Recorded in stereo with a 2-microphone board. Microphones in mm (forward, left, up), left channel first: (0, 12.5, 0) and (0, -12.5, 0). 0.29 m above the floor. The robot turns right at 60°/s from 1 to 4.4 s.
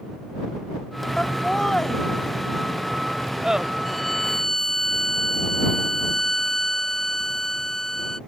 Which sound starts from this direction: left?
Laughter, at 1.2 s.